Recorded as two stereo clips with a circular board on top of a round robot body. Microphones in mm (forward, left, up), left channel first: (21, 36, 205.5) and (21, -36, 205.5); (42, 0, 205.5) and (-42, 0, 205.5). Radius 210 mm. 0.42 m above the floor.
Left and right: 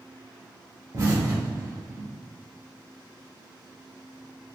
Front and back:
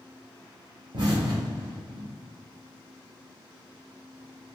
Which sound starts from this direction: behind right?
An explosion, at 0.9 s.